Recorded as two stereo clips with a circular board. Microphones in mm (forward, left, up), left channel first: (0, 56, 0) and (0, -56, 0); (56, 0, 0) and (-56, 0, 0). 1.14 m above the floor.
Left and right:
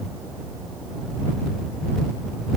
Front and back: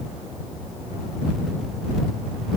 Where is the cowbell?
I don't hear a cowbell.